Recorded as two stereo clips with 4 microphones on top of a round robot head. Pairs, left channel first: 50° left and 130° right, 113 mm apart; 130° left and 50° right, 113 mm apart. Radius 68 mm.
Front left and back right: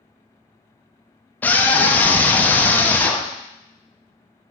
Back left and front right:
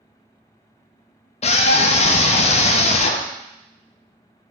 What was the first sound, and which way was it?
A scream, 120° left.